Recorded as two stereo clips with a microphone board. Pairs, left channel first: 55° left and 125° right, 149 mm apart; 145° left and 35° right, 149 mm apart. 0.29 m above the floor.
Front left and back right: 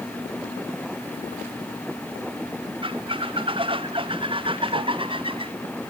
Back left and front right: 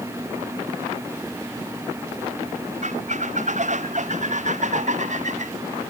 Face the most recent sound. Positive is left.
turn(degrees=-70)